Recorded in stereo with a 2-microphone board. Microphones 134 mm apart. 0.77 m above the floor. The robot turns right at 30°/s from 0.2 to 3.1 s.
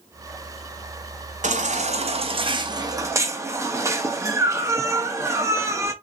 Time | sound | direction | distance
1.4 | a baby crying | 75° right | 0.7 m